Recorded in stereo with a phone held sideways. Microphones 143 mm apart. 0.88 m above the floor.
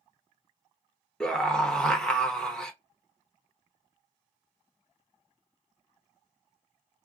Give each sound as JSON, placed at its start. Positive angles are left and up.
{"t": 1.2, "sound": "a scream", "side_deg": 5, "distance_m": 0.8}